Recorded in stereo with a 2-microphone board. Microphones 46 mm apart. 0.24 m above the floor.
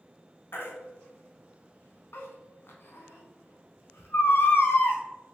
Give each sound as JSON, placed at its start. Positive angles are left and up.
{"t": 0.5, "sound": "a baby crying", "side_deg": 65, "distance_m": 0.8}